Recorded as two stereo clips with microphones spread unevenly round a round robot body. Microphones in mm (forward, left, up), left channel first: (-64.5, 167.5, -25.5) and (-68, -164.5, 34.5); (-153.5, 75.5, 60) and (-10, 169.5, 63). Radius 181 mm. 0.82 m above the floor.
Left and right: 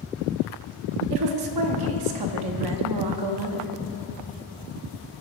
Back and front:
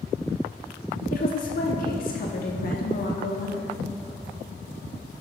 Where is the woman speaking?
105° right, 1.3 m.